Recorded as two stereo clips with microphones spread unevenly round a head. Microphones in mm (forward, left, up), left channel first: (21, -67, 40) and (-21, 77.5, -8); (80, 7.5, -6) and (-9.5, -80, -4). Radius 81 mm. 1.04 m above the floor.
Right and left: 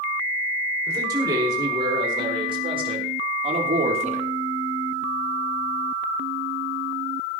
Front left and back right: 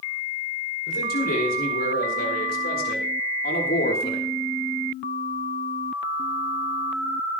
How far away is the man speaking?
About 5.5 m.